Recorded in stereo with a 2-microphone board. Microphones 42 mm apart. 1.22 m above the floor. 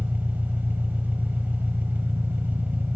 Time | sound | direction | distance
0.0 | an engine running | 50° right (ahead or behind) | 1.5 m